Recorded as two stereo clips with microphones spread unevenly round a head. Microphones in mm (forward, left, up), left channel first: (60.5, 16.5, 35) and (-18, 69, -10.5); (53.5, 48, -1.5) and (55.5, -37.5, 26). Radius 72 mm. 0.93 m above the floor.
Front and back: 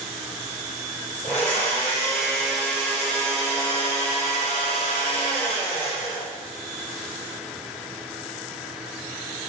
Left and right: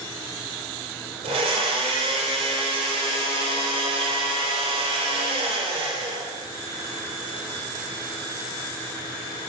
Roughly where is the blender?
Right.